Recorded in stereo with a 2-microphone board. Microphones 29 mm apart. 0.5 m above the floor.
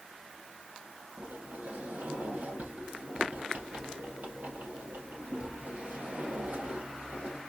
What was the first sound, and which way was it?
A sliding door, 75° right (ahead or behind).